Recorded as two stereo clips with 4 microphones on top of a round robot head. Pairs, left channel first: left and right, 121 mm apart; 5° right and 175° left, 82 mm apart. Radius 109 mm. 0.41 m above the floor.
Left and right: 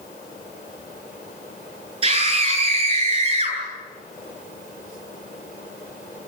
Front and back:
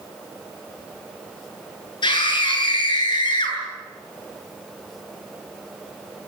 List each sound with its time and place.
2.0 s a scream: 45° right, 9 m